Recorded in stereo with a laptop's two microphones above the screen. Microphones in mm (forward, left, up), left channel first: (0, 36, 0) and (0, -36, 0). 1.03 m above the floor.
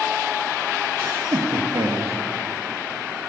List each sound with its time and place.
1.0 s laughter: 55° right (ahead or behind), 1.1 m; by 2.1 s 60° right (ahead or behind), 2 m